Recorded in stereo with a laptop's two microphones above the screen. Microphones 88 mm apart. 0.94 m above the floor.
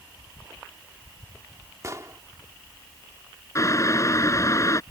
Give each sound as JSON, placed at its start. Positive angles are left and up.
{"t": 1.8, "sound": "an explosion", "side_deg": -35}
{"t": 3.5, "sound": "boiling", "side_deg": 35}